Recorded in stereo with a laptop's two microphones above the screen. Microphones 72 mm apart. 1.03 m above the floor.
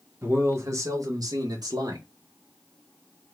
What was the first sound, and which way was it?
A man speaking, 30° right (ahead or behind).